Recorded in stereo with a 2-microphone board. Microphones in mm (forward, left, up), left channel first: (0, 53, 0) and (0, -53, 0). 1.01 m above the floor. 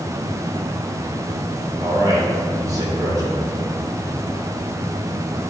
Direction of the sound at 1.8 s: 35° right (ahead or behind).